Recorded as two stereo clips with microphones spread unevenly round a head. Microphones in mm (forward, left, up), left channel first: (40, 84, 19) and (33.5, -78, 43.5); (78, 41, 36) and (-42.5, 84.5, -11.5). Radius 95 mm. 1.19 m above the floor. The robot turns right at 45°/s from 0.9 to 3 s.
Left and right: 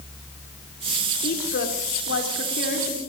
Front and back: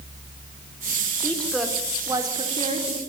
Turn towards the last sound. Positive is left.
turn(degrees=140)